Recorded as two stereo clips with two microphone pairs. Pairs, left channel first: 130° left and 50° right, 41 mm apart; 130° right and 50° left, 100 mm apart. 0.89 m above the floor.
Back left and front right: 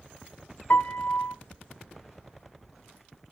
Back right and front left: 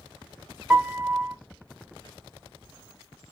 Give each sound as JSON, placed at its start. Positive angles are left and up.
{"t": 0.7, "sound": "a piano", "azimuth_deg": 135, "distance_m": 0.7}